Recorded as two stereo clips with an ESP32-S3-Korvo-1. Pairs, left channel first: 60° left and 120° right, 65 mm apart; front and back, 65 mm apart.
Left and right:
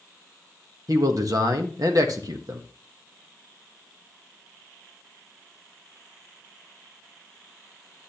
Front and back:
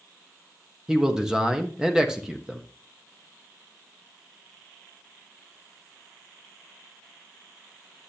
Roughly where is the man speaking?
Right.